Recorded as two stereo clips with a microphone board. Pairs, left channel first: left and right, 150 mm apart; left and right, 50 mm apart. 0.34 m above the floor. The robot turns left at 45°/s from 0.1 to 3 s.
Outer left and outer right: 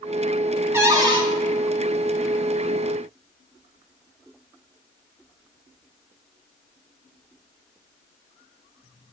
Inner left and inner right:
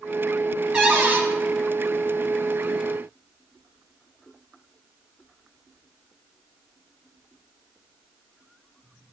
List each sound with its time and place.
0.7 s a cupboard door: 15° right (ahead or behind), 2.5 m; by 1.2 s 35° right (ahead or behind), 2.5 m